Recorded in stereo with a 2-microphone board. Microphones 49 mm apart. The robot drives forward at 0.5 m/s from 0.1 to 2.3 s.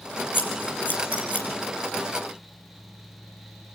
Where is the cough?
I don't hear a cough.